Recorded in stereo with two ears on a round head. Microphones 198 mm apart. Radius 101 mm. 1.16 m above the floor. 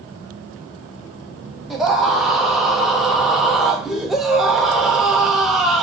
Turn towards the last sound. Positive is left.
turn(degrees=0)  # may be behind; listen again after turning